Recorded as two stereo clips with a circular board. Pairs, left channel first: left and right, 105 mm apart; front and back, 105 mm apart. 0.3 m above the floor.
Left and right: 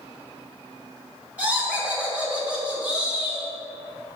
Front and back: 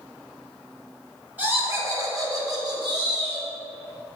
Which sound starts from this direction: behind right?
Laughter, at 1.4 s.